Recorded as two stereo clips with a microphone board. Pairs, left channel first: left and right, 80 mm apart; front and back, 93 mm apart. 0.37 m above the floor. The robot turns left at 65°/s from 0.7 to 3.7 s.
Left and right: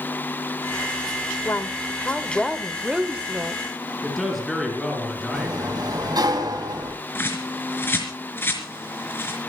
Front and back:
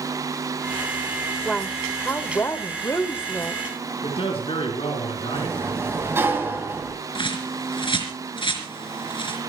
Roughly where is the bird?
Ahead left.